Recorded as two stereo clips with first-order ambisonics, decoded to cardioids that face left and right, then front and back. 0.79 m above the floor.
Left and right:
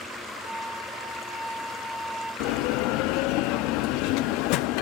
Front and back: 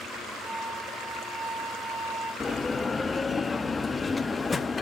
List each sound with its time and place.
0.4 s a flute: 145° right, 9 m
2.4 s a bell: 75° left, 0.5 m